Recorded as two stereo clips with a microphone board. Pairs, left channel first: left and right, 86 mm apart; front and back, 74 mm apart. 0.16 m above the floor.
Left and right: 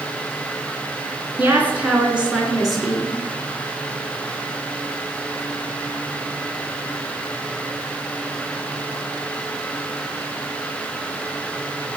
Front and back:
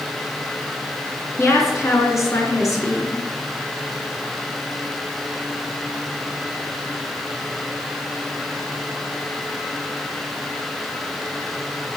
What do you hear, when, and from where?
1.4 s a woman speaking: 30° right, 2 m; by 3.2 s 5° left, 2 m